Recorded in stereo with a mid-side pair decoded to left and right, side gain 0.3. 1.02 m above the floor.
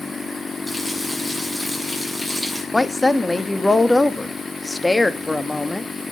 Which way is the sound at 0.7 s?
5° left.